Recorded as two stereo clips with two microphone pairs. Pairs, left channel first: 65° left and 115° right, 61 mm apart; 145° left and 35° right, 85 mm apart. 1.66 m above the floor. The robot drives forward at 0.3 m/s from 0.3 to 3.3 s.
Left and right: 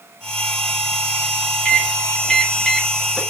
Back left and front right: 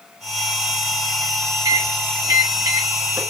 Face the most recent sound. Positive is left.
turn(degrees=-20)